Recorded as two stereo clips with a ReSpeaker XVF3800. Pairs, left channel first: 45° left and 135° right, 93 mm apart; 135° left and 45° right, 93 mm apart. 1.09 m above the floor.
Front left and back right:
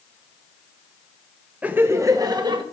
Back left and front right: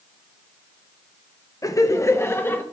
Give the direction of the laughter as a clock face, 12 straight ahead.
7 o'clock.